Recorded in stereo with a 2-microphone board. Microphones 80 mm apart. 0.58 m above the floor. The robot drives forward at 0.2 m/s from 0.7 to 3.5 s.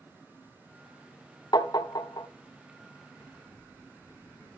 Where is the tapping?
60° left (ahead or behind), 0.8 m; by 2.3 s 55° left (ahead or behind), 0.9 m.